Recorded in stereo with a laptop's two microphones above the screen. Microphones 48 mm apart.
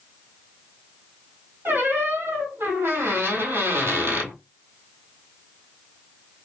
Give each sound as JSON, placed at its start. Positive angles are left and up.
{"t": 1.6, "sound": "a squeak", "side_deg": -55, "distance_m": 1.6}